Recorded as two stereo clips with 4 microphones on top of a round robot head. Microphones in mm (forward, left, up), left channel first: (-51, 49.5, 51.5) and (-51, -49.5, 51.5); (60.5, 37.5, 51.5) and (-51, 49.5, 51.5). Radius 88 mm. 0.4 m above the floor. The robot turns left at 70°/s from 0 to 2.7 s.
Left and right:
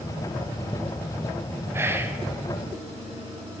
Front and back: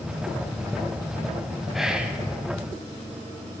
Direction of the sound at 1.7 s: 105° right.